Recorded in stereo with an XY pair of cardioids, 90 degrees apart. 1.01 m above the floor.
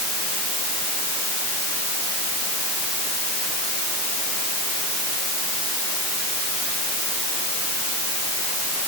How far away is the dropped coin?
No dropped coin in this recording.